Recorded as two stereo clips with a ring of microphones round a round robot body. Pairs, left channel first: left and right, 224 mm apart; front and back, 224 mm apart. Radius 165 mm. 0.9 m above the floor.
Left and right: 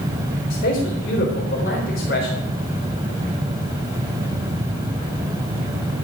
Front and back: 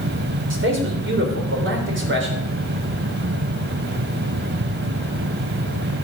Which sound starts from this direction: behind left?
A man speaking, at 0.5 s.